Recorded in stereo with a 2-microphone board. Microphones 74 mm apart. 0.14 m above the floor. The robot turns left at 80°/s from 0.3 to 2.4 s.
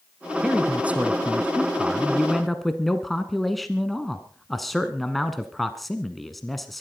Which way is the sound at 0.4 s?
10° right (ahead or behind).